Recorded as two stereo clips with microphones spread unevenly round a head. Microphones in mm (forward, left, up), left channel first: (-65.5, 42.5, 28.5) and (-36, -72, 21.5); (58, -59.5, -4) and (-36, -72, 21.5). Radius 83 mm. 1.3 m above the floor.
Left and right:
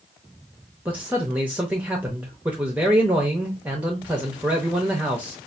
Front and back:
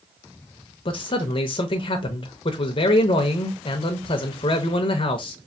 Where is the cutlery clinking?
No cutlery clinking in this recording.